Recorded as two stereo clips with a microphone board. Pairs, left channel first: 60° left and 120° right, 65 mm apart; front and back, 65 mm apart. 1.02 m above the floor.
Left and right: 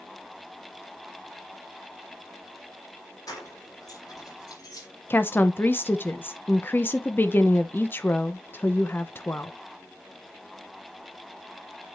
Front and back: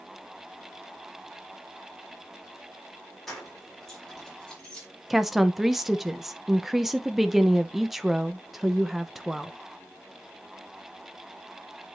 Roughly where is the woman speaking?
Left.